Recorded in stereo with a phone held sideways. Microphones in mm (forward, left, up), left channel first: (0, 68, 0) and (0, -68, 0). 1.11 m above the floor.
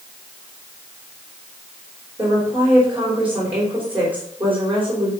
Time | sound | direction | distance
2.2 | a woman speaking | 10° right (ahead or behind) | 4.5 m